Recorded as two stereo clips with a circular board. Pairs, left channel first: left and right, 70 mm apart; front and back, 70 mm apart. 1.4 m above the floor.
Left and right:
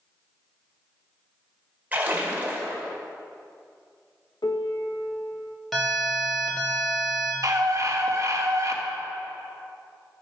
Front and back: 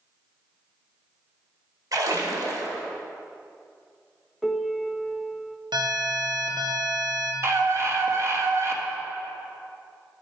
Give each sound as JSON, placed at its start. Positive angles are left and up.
{"t": 1.9, "sound": "a splash", "azimuth_deg": -155, "distance_m": 2.0}
{"t": 4.4, "sound": "a piano", "azimuth_deg": 90, "distance_m": 0.9}
{"t": 5.7, "sound": "an alarm", "azimuth_deg": 175, "distance_m": 2.0}
{"t": 7.4, "sound": "a scream", "azimuth_deg": -130, "distance_m": 1.8}